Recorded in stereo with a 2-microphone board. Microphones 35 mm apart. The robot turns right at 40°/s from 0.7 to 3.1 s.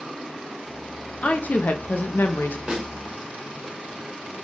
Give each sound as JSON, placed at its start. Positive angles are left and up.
{"t": 1.2, "sound": "a woman speaking", "azimuth_deg": 45, "distance_m": 0.6}
{"t": 2.7, "sound": "a snare drum", "side_deg": -20, "distance_m": 1.1}